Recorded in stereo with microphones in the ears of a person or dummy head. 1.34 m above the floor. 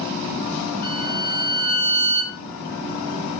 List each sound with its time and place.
0.8 s a violin: 50° left (ahead or behind), 4 m